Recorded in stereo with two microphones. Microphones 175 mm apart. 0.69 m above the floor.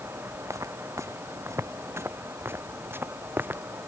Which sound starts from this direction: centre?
Footsteps, at 0.5 s.